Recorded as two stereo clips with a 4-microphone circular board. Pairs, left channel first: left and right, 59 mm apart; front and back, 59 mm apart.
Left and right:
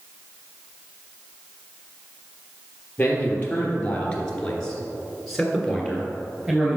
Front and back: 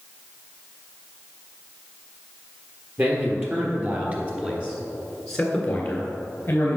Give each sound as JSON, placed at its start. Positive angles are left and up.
{"t": 3.0, "sound": "a man speaking", "azimuth_deg": 150, "distance_m": 3.0}